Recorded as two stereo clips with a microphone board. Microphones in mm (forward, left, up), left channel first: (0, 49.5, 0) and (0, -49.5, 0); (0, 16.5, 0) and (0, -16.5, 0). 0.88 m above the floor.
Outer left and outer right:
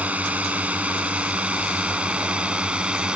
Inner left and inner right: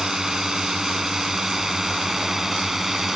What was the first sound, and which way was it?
A drone, 15° right (ahead or behind).